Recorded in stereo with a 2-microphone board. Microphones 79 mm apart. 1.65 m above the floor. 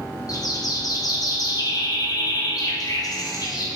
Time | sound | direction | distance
0.3 | a bird | 50° left (ahead or behind) | 1.0 m